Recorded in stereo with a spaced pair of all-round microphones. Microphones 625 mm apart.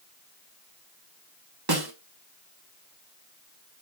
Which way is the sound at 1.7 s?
35° right (ahead or behind).